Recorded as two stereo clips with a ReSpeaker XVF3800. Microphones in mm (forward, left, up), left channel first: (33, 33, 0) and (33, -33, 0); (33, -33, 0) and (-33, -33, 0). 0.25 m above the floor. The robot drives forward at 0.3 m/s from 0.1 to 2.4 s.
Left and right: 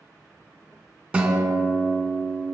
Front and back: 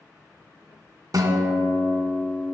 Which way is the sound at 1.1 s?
165° right.